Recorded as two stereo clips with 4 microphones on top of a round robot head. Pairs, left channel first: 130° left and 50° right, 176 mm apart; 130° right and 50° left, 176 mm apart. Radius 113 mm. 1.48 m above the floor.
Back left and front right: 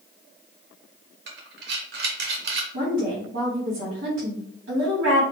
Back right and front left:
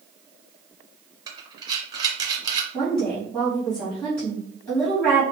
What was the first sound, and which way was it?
Breathing, 20° right.